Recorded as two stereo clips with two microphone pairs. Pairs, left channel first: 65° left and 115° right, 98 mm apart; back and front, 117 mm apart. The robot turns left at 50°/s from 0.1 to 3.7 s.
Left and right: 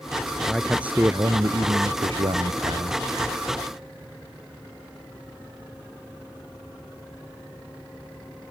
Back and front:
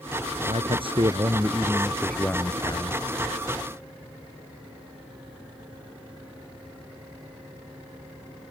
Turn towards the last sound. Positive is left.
turn(degrees=175)